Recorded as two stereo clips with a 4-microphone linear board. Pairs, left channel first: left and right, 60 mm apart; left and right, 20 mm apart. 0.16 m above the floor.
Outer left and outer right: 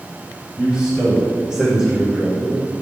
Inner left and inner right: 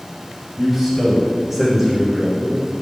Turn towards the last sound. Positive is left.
turn(degrees=-5)  # may be behind; listen again after turning